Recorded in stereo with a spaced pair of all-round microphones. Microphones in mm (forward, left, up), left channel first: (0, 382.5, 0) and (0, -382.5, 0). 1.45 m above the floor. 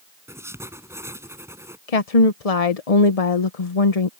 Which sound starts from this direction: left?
A woman speaking, at 1.9 s.